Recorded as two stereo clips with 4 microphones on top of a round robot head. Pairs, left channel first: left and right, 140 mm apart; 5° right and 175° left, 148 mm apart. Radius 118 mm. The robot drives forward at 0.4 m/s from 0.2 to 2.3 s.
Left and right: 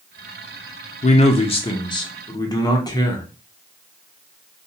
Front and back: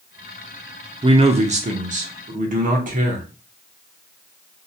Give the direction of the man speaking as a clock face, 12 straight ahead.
8 o'clock.